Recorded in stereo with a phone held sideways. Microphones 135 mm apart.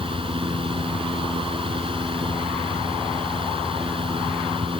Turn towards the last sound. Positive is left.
turn(degrees=-40)  # may be behind; listen again after turning